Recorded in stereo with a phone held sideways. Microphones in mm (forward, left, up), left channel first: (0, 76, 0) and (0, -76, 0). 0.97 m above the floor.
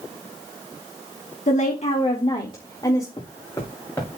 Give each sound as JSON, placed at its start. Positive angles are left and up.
{"t": 1.5, "sound": "a woman speaking", "side_deg": 55, "distance_m": 1.3}
{"t": 3.2, "sound": "footsteps", "side_deg": 25, "distance_m": 5.5}